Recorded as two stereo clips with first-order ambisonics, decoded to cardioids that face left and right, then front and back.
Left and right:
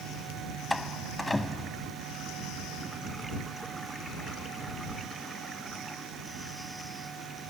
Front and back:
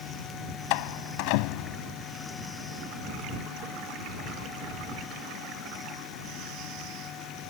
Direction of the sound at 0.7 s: 5° left.